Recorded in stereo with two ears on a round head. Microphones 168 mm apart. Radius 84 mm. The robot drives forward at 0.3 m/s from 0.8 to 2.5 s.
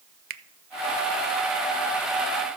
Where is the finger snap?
50° right (ahead or behind), 0.6 m.